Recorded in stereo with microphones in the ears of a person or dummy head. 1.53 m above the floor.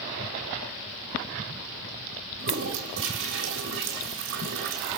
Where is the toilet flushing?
65° right (ahead or behind), 3 m.